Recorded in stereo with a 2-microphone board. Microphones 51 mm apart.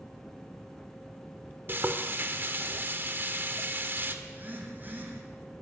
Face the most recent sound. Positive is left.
turn(degrees=-40)  # may be behind; listen again after turning